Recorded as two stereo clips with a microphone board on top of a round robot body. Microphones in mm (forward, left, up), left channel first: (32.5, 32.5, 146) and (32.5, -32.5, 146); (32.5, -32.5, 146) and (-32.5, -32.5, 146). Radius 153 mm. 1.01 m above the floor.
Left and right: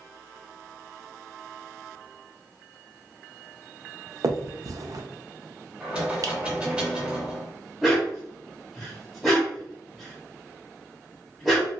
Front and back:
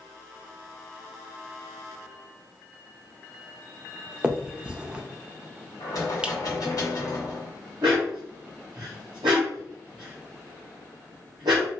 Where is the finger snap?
105° right, 0.6 m.